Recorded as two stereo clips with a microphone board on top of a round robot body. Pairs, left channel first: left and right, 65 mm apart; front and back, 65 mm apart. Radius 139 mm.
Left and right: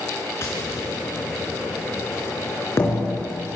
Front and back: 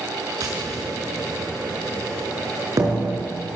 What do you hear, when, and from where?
0.4 s tapping: 145° left, 5 m